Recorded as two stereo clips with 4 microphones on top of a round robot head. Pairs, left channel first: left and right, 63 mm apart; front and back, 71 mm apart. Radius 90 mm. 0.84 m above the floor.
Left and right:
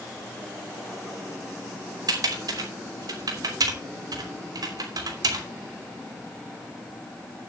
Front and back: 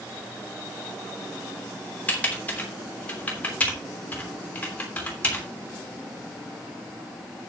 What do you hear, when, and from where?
2.1 s typing on a keyboard: 75° right, 3 m